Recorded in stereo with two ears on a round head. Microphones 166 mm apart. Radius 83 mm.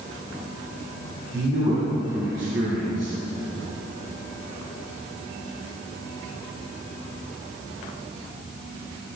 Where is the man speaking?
20° right (ahead or behind), 4 m.